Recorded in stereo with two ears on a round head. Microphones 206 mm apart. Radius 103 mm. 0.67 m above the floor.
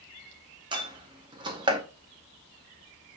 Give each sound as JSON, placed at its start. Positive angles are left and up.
{"t": 0.7, "sound": "a door slam", "side_deg": -20, "distance_m": 0.7}